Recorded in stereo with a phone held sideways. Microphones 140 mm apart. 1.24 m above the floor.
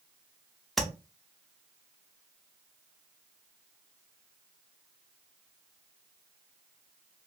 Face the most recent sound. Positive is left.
turn(degrees=0)  # may be behind; listen again after turning